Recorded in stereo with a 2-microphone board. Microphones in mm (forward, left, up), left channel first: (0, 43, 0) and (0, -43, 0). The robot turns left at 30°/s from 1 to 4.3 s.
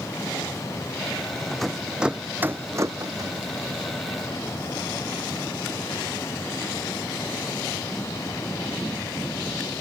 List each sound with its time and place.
1.5 s a rattle: 5° left (ahead or behind); by 3.3 s 50° right (ahead or behind)